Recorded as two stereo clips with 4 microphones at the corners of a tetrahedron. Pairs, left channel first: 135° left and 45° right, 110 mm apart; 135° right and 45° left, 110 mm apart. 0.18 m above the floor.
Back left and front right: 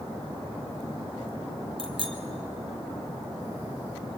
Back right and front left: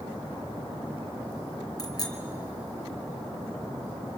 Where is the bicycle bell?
80° right, 3 m.